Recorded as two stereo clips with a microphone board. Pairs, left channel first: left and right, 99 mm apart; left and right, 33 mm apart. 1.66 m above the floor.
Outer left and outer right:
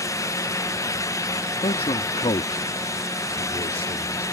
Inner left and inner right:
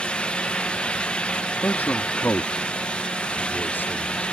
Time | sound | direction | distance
1.6 | a man speaking | 75° left (ahead or behind) | ?